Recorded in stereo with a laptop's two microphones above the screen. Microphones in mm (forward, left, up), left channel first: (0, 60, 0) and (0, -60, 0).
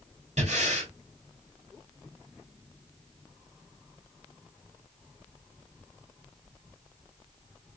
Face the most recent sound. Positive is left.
turn(degrees=-70)  # may be behind; listen again after turning